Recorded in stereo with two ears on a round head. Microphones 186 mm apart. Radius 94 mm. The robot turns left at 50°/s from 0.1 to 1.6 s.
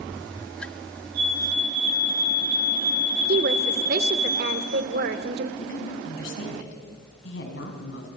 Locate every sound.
1.1 s a fire alarm: 40° right (ahead or behind), 10 m; by 4.3 s 65° right (ahead or behind), 10 m
3.3 s a woman speaking: 55° right (ahead or behind), 1.5 m
5.6 s a woman speaking: 65° left (ahead or behind), 4.5 m